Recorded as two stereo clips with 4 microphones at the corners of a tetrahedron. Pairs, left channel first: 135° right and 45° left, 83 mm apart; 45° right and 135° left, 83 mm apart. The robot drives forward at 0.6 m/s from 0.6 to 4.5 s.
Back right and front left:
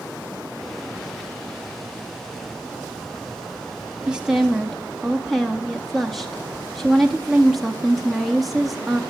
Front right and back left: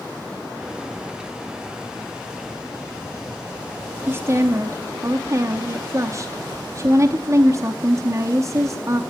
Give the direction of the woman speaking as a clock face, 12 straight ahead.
8 o'clock.